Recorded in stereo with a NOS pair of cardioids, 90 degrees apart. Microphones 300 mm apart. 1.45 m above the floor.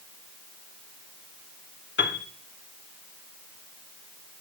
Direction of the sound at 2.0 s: 40° left.